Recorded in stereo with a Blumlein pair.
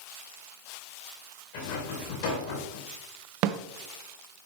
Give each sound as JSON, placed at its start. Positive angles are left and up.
{"t": 1.5, "sound": "a rattle", "azimuth_deg": 50, "distance_m": 2.0}
{"t": 3.4, "sound": "a snare drum", "azimuth_deg": -45, "distance_m": 0.5}